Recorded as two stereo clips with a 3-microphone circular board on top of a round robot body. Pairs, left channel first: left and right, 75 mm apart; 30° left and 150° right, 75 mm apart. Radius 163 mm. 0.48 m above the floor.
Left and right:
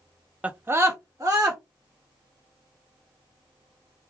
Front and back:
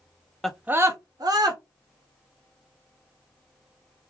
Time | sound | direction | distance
0.4 | a scream | 45° right | 0.7 m